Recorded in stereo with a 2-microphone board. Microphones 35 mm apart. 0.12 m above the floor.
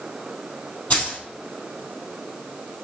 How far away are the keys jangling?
About 2.5 m.